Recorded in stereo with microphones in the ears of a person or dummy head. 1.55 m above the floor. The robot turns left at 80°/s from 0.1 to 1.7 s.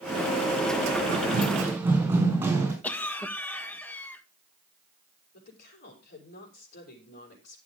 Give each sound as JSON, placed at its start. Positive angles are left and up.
{"t": 1.1, "sound": "running footsteps", "side_deg": -60, "distance_m": 4.5}
{"t": 2.8, "sound": "a cough", "side_deg": 15, "distance_m": 1.6}
{"t": 5.3, "sound": "a woman speaking", "side_deg": 60, "distance_m": 5.5}